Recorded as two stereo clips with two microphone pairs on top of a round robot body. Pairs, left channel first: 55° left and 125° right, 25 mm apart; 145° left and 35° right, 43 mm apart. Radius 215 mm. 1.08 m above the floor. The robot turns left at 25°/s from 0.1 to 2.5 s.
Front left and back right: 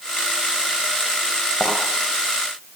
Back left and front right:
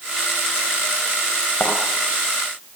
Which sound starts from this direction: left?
A thud, at 1.6 s.